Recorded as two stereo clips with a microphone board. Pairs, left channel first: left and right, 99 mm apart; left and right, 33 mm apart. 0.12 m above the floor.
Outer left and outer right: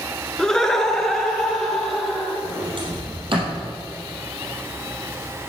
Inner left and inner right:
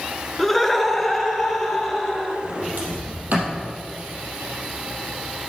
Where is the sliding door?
60° right (ahead or behind), 3.5 m.